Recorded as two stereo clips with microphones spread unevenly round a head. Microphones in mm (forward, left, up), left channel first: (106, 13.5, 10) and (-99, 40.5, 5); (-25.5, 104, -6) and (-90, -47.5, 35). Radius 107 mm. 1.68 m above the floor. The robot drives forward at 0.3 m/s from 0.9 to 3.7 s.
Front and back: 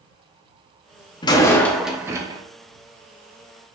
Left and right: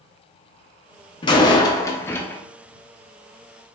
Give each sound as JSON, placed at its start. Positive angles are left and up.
{"t": 1.2, "sound": "a door slam", "azimuth_deg": 5, "distance_m": 0.5}